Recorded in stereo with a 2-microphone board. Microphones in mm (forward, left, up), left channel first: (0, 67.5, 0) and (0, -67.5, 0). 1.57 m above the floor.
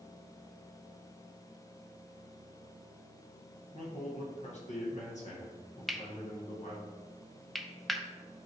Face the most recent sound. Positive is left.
turn(degrees=0)  # may be behind; listen again after turning